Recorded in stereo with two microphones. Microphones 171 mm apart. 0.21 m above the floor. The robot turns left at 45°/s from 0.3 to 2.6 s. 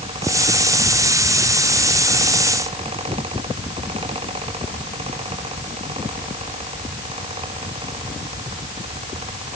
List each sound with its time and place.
Only background noise.